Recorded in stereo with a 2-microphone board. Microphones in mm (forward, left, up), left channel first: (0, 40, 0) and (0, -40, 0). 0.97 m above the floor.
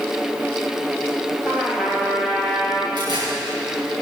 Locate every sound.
1.4 s a trumpet: 10° right (ahead or behind), 2.5 m
3.0 s tearing paper: 65° right (ahead or behind), 5 m